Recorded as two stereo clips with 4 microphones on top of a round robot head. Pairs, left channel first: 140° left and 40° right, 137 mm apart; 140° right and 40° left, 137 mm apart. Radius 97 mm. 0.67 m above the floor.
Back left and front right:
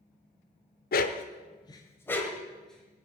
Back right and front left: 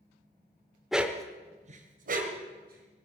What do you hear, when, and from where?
0.9 s a dog barking: 130° left, 1.0 m; by 3.0 s 50° left, 3 m